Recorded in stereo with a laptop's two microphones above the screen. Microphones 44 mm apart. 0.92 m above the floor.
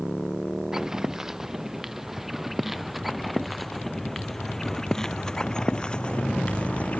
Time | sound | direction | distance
0.7 | footsteps | 15° right (ahead or behind) | ?